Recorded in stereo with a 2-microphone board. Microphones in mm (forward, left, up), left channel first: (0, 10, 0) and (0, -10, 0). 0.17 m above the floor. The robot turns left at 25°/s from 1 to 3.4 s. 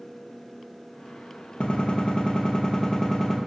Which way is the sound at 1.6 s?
65° left.